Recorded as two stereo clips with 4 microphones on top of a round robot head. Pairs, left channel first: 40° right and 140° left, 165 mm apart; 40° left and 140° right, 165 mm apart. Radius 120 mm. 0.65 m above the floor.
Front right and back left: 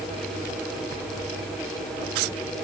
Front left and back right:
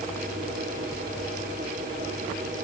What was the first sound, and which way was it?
Only background noise.